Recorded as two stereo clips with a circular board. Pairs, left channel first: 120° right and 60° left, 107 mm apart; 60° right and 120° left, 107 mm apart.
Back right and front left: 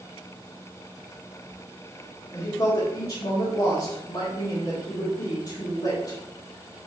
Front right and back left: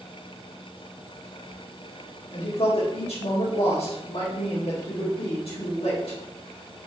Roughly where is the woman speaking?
Right.